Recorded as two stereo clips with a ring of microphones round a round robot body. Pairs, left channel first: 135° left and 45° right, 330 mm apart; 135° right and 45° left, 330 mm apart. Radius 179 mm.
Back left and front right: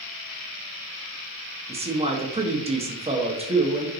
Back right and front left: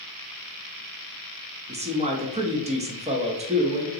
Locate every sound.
1.7 s a man speaking: straight ahead, 0.7 m